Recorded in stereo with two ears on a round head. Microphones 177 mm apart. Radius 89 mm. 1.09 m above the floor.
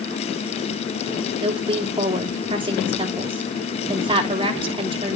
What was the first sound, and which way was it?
A woman speaking, 25° right (ahead or behind).